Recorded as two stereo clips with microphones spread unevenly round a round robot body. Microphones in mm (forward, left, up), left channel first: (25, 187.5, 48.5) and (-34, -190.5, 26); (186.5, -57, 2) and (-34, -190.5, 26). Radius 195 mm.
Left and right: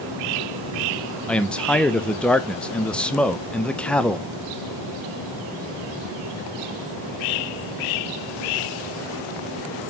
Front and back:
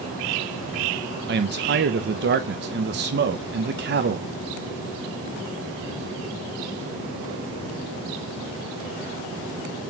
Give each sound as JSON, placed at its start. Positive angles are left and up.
{"t": 1.3, "sound": "a man speaking", "azimuth_deg": 170, "distance_m": 0.6}